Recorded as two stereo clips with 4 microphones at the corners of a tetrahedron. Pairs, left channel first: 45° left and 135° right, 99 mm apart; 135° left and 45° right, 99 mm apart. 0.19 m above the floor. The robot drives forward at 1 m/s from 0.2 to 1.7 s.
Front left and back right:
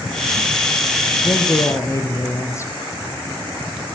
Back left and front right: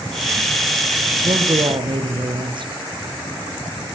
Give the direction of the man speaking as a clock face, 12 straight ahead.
12 o'clock.